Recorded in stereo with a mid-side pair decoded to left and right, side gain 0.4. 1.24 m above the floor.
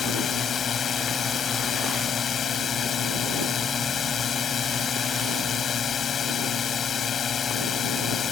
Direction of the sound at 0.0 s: 55° left.